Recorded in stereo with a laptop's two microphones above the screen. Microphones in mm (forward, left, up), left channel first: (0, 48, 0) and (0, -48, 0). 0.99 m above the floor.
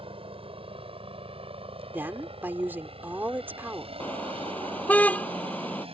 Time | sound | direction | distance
0.0 | a helicopter | 70° right (ahead or behind) | ?
1.9 | a woman speaking | 20° right (ahead or behind) | ?
4.0 | a car horn | 15° left (ahead or behind) | ?